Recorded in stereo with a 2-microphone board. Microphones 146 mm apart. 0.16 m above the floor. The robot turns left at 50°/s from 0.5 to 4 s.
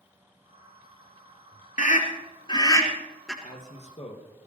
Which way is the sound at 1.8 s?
60° left (ahead or behind).